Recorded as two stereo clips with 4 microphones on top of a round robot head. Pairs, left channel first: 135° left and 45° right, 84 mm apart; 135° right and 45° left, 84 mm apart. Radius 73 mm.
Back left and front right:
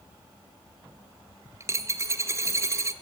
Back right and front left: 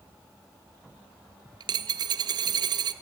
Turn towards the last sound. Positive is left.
turn(degrees=10)